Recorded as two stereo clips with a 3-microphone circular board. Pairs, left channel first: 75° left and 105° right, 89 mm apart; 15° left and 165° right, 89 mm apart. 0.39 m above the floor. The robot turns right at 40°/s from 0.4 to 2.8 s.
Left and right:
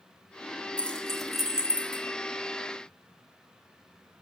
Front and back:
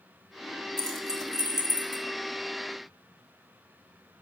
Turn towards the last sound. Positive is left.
turn(degrees=-135)